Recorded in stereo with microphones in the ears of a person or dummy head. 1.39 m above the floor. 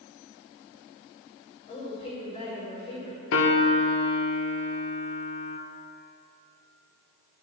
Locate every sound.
1.7 s a woman speaking: 35° left (ahead or behind), 5.5 m
3.3 s a piano: 65° left (ahead or behind), 1.4 m